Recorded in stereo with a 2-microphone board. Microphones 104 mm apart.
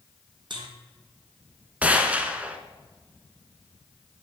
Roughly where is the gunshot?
Centre.